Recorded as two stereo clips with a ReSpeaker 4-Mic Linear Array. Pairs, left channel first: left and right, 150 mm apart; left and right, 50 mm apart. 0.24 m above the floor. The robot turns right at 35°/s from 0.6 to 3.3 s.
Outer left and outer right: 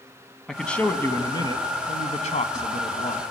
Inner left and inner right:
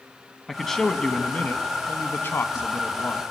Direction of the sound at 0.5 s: 5° left.